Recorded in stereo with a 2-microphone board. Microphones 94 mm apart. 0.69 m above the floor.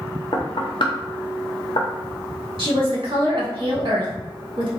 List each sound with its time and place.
0.3 s knocking: 60° left (ahead or behind), 0.7 m
2.6 s a woman speaking: 60° right (ahead or behind), 1.5 m